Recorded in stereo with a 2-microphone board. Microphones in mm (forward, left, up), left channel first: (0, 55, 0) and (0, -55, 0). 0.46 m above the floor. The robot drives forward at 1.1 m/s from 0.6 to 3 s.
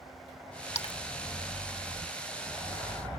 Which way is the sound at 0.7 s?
70° left (ahead or behind).